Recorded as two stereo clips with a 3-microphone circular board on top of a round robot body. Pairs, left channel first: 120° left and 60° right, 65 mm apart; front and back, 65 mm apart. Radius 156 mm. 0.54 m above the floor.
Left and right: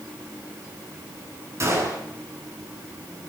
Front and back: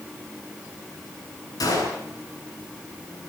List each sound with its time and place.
1.6 s a gunshot: 20° right, 8.5 m